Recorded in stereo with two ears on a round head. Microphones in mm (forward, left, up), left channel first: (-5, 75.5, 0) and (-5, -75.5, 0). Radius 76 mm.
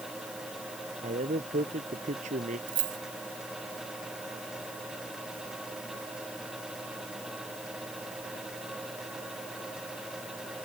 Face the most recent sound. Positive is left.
turn(degrees=-50)  # may be behind; listen again after turning